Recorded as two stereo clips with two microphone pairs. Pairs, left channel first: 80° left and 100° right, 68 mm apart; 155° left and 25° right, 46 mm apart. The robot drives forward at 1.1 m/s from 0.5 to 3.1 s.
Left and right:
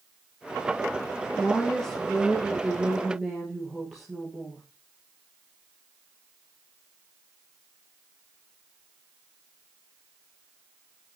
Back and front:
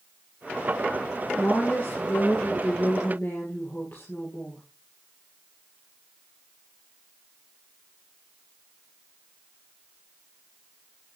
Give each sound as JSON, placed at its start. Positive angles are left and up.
{"t": 1.4, "sound": "a woman speaking", "azimuth_deg": 145, "distance_m": 1.7}